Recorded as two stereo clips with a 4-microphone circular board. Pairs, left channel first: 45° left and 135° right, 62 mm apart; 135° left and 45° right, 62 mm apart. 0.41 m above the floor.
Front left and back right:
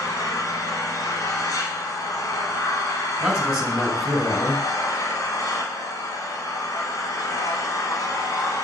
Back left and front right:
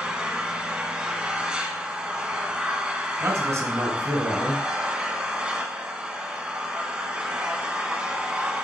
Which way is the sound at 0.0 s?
30° left.